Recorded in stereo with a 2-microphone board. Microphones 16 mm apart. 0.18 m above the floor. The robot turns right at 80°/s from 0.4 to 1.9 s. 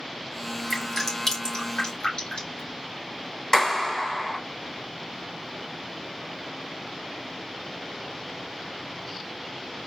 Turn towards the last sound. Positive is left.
turn(degrees=25)  # may be behind; listen again after turning